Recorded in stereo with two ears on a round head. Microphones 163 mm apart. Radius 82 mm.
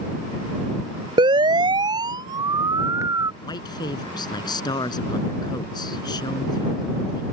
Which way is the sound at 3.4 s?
25° left (ahead or behind).